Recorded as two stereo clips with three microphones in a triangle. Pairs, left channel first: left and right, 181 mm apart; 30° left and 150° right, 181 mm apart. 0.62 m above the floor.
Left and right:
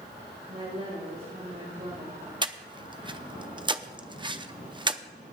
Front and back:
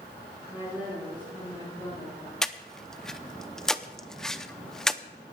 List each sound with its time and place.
0.5 s a woman speaking: 70° right, 6 m; by 2.3 s 75° right, 6.5 m
2.4 s breathing: 55° right, 0.6 m